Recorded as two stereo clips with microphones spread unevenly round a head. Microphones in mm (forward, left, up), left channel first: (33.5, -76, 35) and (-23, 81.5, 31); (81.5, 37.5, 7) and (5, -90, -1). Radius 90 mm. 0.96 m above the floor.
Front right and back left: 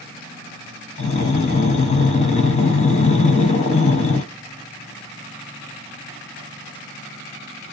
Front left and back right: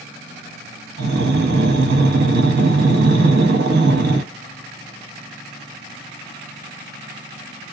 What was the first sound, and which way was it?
Breathing, 120° right.